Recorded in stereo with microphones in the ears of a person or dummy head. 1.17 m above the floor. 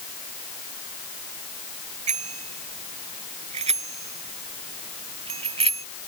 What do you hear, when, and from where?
2.1 s a bicycle bell: 35° right (ahead or behind); by 5.9 s 30° right (ahead or behind)